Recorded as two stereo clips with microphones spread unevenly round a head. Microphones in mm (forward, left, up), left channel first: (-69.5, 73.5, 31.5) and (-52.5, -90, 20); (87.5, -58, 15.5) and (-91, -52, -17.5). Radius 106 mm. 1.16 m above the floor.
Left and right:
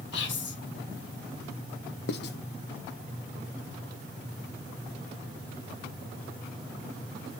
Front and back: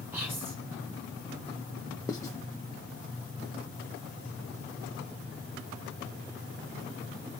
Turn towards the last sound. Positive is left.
turn(degrees=75)